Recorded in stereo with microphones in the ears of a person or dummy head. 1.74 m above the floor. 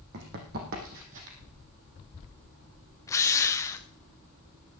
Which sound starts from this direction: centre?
A drill, at 3.1 s.